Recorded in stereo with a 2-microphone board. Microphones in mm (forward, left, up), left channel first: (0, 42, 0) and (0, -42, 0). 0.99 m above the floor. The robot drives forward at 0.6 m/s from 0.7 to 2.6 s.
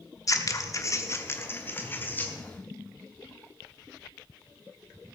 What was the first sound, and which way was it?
Scissors, 40° left (ahead or behind).